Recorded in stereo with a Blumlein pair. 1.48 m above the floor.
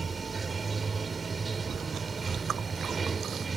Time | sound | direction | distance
0.0 | running water | 15° right | ?
1.7 | chewing | 25° right | ?